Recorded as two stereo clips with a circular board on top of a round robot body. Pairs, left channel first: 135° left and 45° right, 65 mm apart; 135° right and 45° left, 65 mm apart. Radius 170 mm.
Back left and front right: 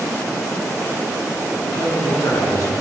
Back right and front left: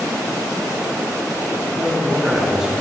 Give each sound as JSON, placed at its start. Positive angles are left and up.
{"t": 1.6, "sound": "a man speaking", "azimuth_deg": 145, "distance_m": 2.0}